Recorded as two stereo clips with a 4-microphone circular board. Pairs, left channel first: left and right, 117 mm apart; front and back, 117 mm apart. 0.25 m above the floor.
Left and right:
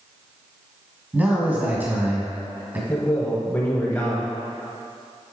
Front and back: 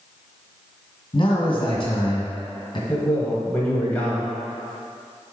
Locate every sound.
1.1 s a man speaking: 20° right, 1.8 m
2.9 s a man speaking: 50° left, 1.1 m